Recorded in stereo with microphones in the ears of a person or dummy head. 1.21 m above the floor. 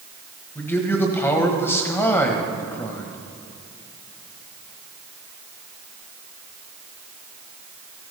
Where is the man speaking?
10° left (ahead or behind), 1.3 m.